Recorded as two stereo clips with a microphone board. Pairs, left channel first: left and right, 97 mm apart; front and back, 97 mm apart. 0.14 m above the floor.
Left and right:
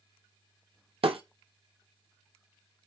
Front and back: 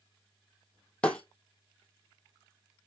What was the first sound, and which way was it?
Breaking glass, 80° right.